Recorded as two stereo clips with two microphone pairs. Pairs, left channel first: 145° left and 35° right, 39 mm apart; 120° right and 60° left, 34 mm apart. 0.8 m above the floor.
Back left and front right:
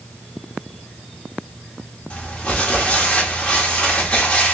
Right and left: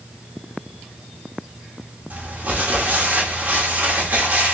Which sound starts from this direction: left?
Crumpling, at 2.1 s.